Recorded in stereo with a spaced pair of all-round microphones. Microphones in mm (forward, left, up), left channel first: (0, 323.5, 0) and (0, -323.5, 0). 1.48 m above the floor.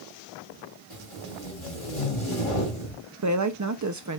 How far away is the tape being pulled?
About 3.5 m.